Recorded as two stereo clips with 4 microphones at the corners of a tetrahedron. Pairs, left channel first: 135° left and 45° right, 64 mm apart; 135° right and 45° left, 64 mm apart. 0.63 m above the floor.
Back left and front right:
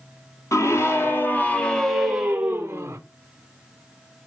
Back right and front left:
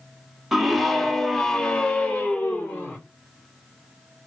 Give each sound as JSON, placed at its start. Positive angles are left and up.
{"t": 0.5, "sound": "a scream", "azimuth_deg": 135, "distance_m": 1.1}